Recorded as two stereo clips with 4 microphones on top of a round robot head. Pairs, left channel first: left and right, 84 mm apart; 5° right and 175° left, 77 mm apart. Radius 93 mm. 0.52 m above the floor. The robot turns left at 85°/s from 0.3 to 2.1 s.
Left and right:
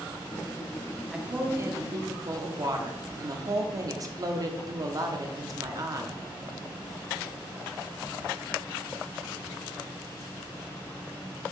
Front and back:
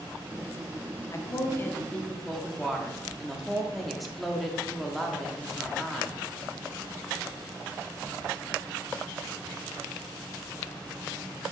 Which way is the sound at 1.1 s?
10° right.